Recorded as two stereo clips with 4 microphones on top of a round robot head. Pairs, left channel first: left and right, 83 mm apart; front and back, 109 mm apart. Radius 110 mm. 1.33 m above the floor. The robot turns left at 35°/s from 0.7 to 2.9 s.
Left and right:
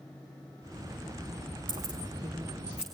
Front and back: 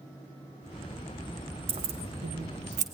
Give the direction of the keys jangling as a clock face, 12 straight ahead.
4 o'clock.